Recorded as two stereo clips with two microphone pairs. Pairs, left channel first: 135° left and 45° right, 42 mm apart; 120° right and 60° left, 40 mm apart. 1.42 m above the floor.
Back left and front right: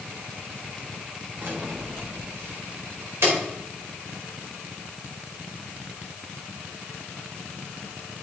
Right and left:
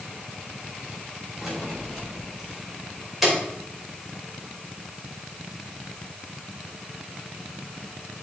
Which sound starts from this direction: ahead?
Keys jangling, at 1.4 s.